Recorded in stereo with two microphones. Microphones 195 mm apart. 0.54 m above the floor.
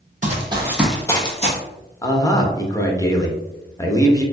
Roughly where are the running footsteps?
Right.